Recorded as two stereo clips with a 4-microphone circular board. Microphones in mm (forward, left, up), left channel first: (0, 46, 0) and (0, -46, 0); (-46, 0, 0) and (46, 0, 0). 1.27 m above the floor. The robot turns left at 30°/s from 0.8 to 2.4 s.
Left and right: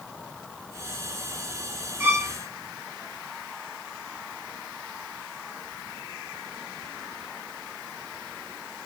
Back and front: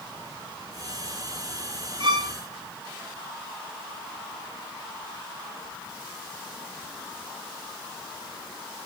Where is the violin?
25° right, 0.6 m; by 2.4 s 35° right, 0.6 m.